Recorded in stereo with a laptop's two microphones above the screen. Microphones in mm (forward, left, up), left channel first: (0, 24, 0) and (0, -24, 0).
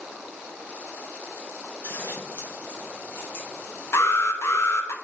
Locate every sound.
1.8 s scissors: 45° left (ahead or behind), 2 m
3.9 s an alarm: 65° left (ahead or behind), 0.8 m